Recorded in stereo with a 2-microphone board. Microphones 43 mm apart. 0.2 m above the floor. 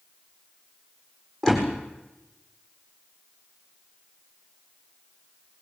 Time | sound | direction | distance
1.4 | a door slam | 10° left (ahead or behind) | 7.5 m